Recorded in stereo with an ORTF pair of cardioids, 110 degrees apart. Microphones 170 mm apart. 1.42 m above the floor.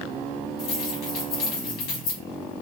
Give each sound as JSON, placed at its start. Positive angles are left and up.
{"t": 0.6, "sound": "keys jangling", "azimuth_deg": 70, "distance_m": 2.5}